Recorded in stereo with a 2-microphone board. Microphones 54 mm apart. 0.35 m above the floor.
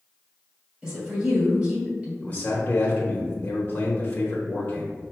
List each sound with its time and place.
0.8 s a woman speaking: 15° right (ahead or behind), 1.9 m
2.2 s a man speaking: 30° left (ahead or behind), 0.9 m